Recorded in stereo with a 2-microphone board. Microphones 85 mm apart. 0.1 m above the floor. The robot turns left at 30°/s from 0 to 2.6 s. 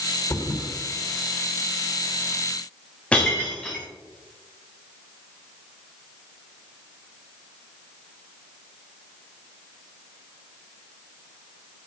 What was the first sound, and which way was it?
A thud, 35° left (ahead or behind).